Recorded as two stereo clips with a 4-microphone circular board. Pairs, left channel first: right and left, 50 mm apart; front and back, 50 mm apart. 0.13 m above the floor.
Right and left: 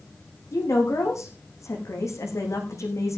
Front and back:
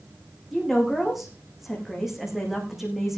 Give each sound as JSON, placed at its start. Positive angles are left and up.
{"t": 0.5, "sound": "a woman speaking", "azimuth_deg": -95, "distance_m": 7.0}